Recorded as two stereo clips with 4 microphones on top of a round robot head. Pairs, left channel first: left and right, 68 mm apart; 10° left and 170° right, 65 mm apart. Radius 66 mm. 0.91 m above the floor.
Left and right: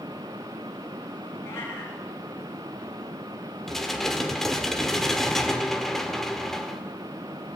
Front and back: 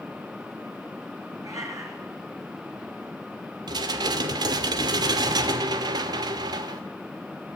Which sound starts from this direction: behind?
Dishes clattering, at 3.7 s.